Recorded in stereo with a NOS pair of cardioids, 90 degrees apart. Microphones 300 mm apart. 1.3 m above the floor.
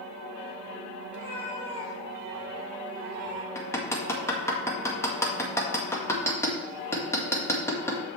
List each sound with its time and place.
1.1 s a cat meowing: 35° left, 2.5 m; by 3.5 s 40° right, 2 m
3.5 s hammering: 10° left, 1.9 m